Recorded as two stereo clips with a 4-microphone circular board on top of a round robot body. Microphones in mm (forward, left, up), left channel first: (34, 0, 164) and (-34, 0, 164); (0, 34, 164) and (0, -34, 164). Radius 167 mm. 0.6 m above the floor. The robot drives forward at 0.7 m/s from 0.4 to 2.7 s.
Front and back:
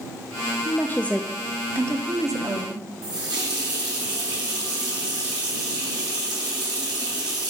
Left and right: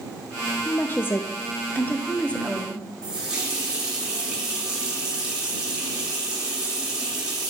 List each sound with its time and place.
0.7 s a woman speaking: 30° left, 0.8 m; by 2.9 s 165° left, 1.2 m
3.0 s a running tap: 170° right, 1.9 m